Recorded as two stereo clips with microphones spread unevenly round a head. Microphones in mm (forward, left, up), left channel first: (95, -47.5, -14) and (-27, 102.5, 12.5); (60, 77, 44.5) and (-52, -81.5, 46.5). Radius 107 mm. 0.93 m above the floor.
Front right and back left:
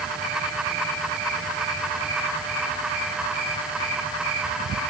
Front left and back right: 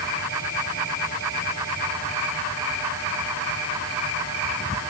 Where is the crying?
I don't hear crying.